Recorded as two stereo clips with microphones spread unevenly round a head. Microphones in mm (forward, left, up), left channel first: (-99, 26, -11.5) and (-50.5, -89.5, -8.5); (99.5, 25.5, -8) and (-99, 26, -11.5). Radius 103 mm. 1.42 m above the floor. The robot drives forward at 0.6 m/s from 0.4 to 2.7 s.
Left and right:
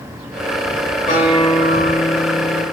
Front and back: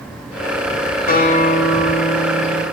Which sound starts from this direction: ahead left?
A guitar, at 1.1 s.